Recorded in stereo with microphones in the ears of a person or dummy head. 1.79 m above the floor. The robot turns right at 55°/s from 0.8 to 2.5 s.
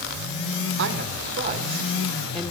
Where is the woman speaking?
80° right, 1.1 m; by 2.5 s 10° left, 1.1 m.